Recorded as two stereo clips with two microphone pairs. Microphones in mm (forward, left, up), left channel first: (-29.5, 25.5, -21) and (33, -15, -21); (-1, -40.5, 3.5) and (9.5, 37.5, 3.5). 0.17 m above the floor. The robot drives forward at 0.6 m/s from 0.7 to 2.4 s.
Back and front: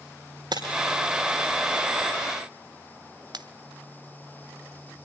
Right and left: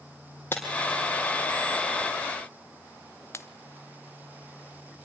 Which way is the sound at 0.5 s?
35° right.